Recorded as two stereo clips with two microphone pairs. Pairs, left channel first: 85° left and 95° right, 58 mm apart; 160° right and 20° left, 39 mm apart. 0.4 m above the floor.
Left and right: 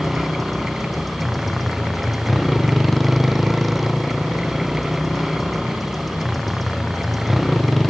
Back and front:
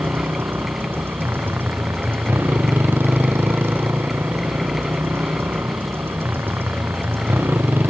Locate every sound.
0.0 s a motorcycle: 5° right